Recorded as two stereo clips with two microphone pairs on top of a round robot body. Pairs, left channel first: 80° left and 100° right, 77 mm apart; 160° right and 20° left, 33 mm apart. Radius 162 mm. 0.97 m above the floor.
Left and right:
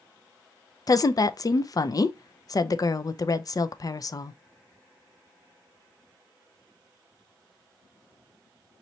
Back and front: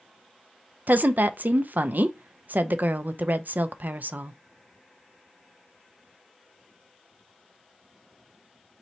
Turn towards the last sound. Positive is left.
turn(degrees=45)